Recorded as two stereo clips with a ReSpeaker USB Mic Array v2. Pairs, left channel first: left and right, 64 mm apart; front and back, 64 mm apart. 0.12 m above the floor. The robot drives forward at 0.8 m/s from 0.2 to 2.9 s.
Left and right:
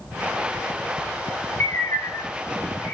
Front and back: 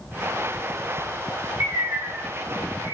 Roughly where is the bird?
Behind left.